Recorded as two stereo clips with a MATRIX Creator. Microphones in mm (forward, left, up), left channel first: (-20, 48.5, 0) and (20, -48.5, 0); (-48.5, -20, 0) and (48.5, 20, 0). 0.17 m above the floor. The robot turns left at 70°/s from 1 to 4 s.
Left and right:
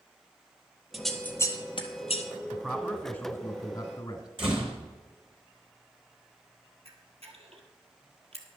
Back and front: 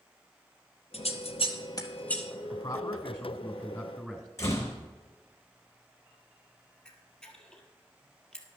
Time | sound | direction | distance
0.9 | scissors | 155° right | 1.2 m
2.5 | a man speaking | 165° right | 1.5 m
4.4 | a door slam | 100° right | 3 m
6.8 | a camera shutter | 75° right | 1.7 m